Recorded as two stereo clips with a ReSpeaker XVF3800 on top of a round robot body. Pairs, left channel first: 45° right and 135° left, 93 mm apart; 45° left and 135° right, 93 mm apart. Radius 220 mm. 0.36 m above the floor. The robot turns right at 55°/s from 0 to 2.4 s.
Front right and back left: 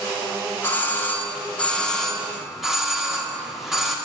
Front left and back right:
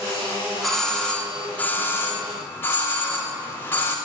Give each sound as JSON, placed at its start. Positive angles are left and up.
{"t": 0.6, "sound": "a doorbell", "azimuth_deg": -45, "distance_m": 1.5}